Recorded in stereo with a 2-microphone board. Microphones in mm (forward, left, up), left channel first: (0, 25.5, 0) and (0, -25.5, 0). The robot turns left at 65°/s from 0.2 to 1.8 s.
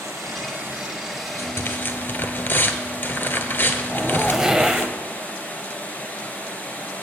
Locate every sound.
0.0 s running water: 110° right, 2 m; by 7.0 s 145° left, 2 m
1.4 s tearing paper: 75° left (ahead or behind), 1.0 m; by 4.9 s 45° left (ahead or behind), 1.0 m
3.9 s a zipper: 10° right (ahead or behind), 0.6 m